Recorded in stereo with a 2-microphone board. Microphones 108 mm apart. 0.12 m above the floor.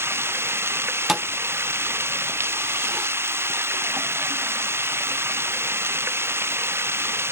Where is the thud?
5° right (ahead or behind).